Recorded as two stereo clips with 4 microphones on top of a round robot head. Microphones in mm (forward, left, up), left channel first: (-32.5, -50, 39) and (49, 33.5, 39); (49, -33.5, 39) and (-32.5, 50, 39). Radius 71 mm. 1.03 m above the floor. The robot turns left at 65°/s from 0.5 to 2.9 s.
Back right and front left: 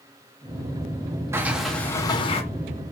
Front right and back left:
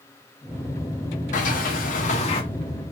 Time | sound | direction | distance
1.3 | a sliding door | 25° right | 0.7 m